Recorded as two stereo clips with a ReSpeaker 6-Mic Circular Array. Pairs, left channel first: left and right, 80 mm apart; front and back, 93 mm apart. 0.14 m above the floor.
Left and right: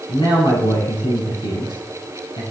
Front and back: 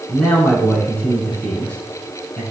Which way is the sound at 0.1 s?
75° left.